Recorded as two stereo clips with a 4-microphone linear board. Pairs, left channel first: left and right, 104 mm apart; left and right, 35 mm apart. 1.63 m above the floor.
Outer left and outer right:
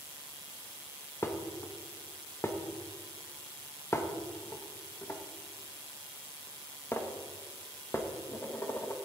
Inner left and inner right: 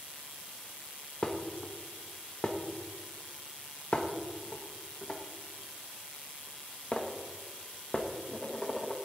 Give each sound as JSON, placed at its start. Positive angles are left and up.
{"t": 1.2, "sound": "dishes clattering", "side_deg": 25, "distance_m": 1.0}